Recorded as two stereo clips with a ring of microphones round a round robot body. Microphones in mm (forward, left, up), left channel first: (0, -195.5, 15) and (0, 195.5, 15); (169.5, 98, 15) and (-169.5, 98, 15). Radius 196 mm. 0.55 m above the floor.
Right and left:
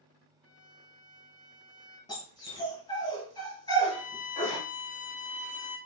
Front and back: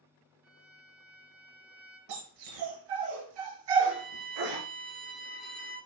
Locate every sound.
0.4 s a violin: 150° right, 4 m
2.1 s a dog barking: 170° right, 4 m
3.9 s a violin: 35° right, 3.5 m